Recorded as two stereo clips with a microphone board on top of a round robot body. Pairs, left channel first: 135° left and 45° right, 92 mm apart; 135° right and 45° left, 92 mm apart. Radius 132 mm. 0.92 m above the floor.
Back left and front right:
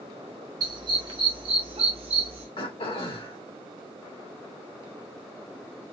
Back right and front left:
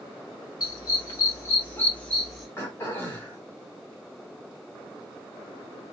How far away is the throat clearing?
About 1.8 m.